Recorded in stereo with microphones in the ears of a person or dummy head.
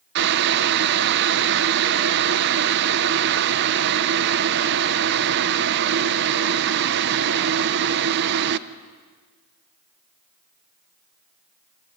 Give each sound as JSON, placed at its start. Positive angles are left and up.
{"t": 0.1, "sound": "boiling", "side_deg": -60, "distance_m": 0.9}